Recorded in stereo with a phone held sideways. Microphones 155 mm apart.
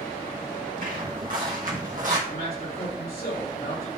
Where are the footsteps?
65° right (ahead or behind), 3 m; by 2.2 s 60° right (ahead or behind), 2.5 m.